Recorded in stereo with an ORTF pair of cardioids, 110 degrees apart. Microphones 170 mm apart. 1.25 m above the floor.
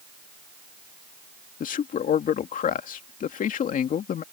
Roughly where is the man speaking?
Ahead left.